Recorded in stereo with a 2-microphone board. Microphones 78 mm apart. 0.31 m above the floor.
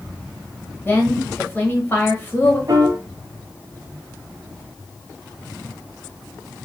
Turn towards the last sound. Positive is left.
turn(degrees=-45)  # may be behind; listen again after turning